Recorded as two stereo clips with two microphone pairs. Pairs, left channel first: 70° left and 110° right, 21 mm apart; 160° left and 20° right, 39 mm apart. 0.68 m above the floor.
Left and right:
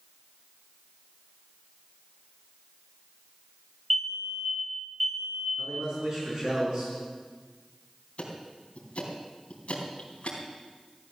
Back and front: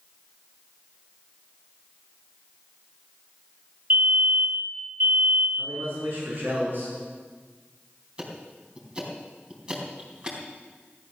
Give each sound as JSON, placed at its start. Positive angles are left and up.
{"t": 3.9, "sound": "a fire alarm", "azimuth_deg": -5, "distance_m": 2.0}
{"t": 5.6, "sound": "a man speaking", "azimuth_deg": -60, "distance_m": 7.0}
{"t": 8.2, "sound": "ticking", "azimuth_deg": 45, "distance_m": 3.5}